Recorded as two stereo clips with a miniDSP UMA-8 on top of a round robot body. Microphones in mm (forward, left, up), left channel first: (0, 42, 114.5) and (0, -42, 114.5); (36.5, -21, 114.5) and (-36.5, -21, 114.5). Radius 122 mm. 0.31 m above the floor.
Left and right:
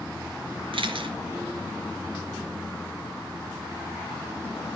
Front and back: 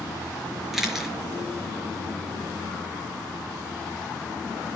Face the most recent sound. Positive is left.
turn(degrees=-95)